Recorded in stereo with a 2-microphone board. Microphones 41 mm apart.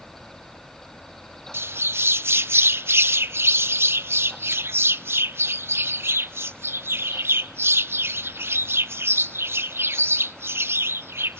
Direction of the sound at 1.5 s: 85° right.